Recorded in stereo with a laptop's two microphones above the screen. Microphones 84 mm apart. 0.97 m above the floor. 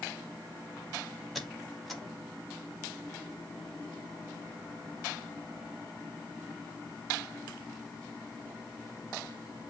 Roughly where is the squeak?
Centre.